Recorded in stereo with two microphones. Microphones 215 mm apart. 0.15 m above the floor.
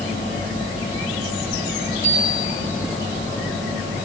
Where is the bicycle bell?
15° left (ahead or behind), 9.5 m.